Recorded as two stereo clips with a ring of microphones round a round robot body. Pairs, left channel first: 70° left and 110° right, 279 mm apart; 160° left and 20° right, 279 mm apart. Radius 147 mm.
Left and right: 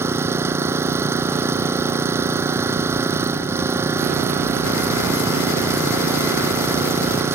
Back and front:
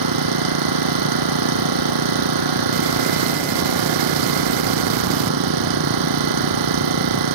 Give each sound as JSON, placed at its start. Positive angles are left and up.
{"t": 0.0, "sound": "an engine running", "azimuth_deg": -30}